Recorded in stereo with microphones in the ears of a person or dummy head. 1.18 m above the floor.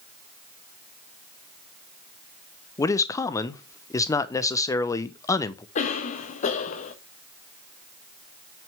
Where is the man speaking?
10° left (ahead or behind), 0.8 m.